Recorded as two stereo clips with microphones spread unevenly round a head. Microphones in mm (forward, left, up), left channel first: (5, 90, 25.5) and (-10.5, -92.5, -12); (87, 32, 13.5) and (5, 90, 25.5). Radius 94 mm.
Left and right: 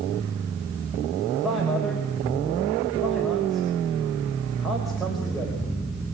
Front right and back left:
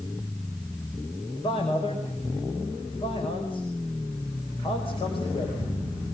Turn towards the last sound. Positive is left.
turn(degrees=-5)